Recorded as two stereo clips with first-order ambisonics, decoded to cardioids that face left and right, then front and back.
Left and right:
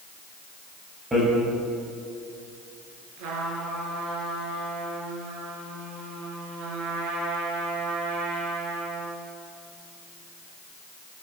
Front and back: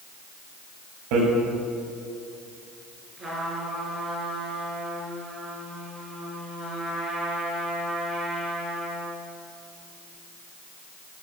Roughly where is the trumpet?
Right.